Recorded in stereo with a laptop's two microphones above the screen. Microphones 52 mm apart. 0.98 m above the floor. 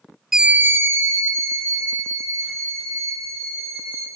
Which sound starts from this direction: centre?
A scream, at 0.3 s.